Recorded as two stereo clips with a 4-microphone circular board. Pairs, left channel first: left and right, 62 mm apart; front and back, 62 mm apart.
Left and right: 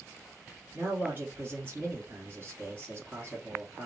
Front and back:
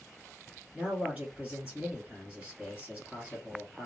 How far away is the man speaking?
About 1.3 m.